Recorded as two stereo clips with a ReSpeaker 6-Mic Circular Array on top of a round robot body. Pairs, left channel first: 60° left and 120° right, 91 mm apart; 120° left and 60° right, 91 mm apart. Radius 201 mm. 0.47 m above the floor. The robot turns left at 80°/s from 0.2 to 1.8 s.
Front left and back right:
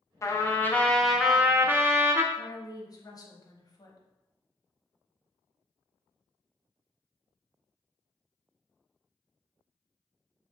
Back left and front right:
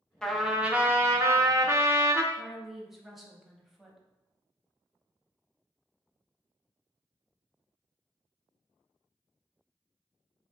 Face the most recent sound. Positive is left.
turn(degrees=25)